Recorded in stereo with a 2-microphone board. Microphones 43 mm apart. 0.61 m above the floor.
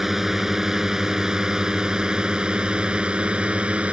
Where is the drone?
10° right (ahead or behind); by 3.9 s 30° right (ahead or behind).